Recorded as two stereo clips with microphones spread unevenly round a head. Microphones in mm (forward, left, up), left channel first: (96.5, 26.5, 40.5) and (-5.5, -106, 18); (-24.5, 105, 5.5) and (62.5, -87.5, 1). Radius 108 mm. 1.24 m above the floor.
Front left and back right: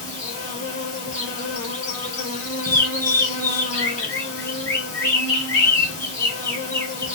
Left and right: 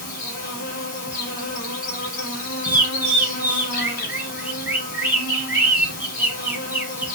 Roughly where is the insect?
Left.